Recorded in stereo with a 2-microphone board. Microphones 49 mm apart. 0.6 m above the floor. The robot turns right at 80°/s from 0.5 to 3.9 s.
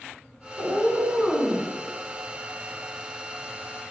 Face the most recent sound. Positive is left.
turn(degrees=175)